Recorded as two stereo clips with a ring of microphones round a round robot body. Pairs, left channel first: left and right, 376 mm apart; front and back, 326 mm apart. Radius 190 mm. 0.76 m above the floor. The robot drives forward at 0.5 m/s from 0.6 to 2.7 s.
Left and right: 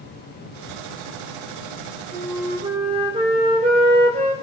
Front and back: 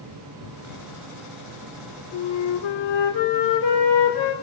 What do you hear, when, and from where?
2.1 s a flute: 15° right, 2 m